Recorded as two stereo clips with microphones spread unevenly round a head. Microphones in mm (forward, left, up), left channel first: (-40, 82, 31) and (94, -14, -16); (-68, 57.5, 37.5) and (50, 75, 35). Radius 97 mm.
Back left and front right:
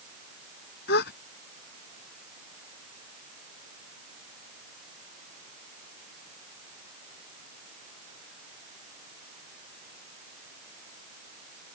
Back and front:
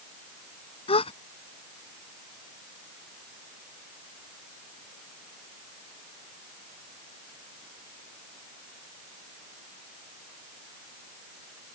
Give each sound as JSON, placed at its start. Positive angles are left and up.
{"t": 0.9, "sound": "a gasp", "azimuth_deg": 150}